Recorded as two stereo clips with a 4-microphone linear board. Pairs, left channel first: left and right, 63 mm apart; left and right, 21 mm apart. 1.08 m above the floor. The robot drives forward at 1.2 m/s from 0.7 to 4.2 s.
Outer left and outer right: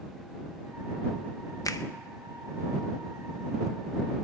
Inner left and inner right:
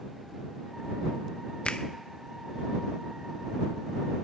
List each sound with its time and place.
1.6 s a finger snap: 65° left (ahead or behind), 0.6 m; by 1.9 s 80° left, 0.6 m